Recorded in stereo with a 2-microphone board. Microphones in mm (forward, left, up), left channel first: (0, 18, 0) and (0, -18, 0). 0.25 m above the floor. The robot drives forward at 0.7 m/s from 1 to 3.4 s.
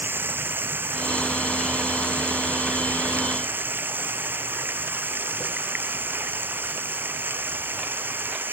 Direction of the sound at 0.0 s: 80° right.